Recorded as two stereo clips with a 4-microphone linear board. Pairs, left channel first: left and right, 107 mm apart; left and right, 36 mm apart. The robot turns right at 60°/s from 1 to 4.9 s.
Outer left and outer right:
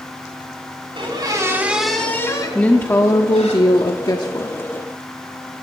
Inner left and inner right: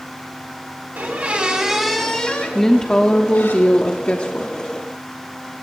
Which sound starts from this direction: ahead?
A woman speaking, at 2.5 s.